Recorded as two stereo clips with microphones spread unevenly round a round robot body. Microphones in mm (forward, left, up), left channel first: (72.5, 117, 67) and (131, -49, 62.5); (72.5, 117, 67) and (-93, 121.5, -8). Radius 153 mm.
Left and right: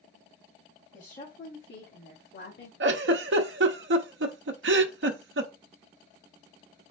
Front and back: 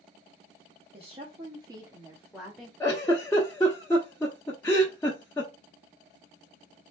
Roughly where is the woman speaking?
Behind.